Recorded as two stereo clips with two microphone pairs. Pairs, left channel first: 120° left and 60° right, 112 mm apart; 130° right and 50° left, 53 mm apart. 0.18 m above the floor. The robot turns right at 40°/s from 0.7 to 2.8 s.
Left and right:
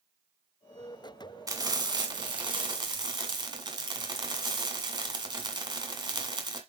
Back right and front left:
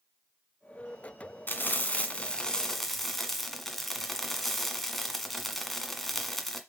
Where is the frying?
100° right, 1.6 m; by 6.6 s 45° right, 1.6 m.